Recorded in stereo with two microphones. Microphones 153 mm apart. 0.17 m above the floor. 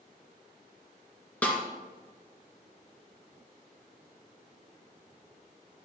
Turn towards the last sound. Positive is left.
turn(degrees=10)  # may be behind; listen again after turning